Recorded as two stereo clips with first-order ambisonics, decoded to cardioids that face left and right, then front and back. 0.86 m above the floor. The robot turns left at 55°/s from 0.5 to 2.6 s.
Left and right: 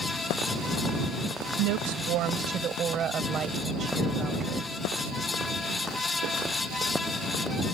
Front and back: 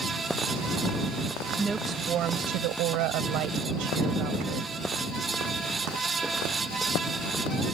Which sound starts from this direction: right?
A woman speaking, at 1.6 s.